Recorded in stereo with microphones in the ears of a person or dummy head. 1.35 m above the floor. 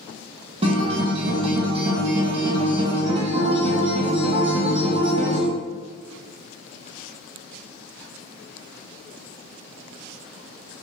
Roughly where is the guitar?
Right.